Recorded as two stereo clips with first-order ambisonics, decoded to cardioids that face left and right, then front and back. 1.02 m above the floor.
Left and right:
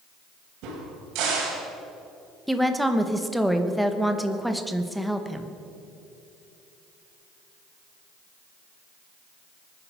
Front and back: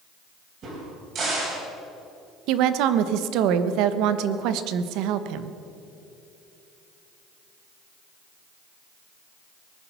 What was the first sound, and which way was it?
A crack, 125° right.